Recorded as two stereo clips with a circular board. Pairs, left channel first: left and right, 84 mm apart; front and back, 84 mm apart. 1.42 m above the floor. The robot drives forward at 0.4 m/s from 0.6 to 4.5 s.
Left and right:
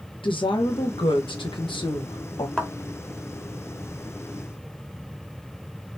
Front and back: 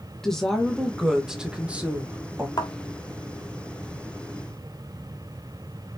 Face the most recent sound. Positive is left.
turn(degrees=30)